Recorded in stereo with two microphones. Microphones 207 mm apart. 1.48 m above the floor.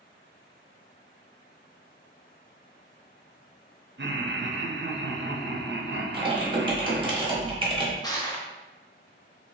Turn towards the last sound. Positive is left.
turn(degrees=20)  # may be behind; listen again after turning